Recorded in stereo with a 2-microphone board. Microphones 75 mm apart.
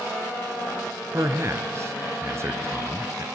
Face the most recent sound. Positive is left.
turn(degrees=-35)  # may be behind; listen again after turning